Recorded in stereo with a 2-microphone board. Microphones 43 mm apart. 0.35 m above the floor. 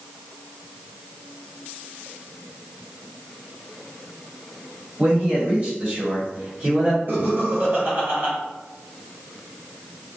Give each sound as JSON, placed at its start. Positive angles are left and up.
{"t": 5.0, "sound": "a man speaking", "side_deg": -40, "distance_m": 1.9}
{"t": 7.1, "sound": "laughter", "side_deg": -60, "distance_m": 1.6}